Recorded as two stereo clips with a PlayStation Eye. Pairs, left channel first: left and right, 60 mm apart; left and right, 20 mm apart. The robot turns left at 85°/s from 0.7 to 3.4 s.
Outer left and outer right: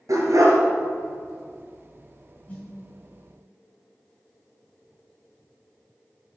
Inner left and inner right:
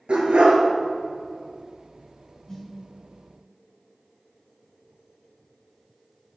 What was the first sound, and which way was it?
A dog barking, 75° right (ahead or behind).